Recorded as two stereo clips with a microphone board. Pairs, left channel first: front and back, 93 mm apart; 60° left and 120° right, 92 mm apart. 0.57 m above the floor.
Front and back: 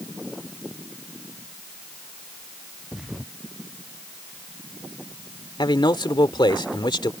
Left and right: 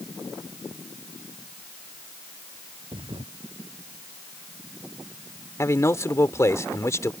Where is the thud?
95° right.